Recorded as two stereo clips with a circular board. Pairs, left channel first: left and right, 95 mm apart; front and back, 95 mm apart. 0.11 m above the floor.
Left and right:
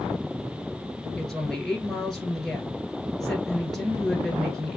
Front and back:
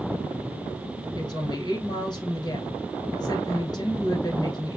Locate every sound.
1.2 s a woman speaking: 5° left, 1.8 m